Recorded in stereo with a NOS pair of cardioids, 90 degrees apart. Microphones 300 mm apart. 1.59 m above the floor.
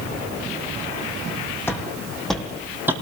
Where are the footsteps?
10° left, 5 m; by 2.9 s 10° right, 4 m.